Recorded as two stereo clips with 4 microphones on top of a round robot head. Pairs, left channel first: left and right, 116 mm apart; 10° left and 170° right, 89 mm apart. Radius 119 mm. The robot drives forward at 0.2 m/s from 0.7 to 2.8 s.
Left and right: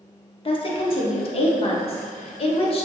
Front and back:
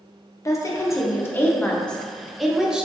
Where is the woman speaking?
60° left, 0.6 m; by 2.9 s 110° left, 0.6 m.